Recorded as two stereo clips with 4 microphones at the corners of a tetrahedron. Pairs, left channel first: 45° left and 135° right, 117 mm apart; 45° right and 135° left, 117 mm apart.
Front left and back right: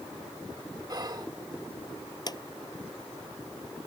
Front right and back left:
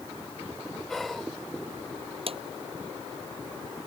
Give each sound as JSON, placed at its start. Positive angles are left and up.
{"t": 0.9, "sound": "whispering", "azimuth_deg": -130}
{"t": 2.3, "sound": "a drawer", "azimuth_deg": 100}